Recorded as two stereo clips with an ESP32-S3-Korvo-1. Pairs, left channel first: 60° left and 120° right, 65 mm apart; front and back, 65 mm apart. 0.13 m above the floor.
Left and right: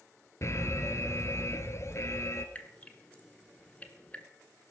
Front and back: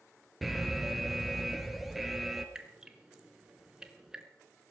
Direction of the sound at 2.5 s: 110° left.